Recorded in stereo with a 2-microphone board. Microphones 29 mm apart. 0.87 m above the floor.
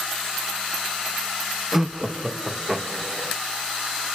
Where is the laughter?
15° right (ahead or behind), 0.6 m.